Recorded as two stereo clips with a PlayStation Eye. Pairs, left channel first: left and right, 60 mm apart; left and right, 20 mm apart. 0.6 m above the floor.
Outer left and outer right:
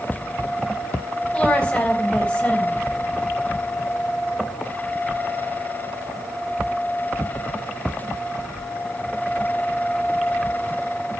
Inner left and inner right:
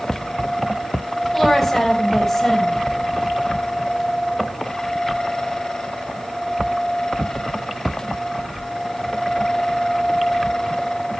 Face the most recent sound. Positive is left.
turn(degrees=20)  # may be behind; listen again after turning